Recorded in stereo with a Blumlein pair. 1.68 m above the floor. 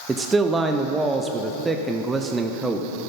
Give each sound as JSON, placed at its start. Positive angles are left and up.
{"t": 0.1, "sound": "a man speaking", "azimuth_deg": -10, "distance_m": 0.9}